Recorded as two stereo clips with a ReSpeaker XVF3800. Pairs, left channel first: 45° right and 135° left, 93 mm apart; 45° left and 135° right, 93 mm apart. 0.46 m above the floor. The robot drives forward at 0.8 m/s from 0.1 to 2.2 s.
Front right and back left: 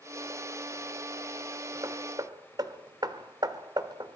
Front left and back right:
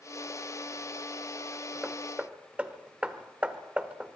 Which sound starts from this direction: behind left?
Hammering, at 1.8 s.